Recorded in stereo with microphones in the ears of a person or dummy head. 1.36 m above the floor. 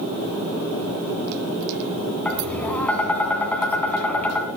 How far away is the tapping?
About 2.0 m.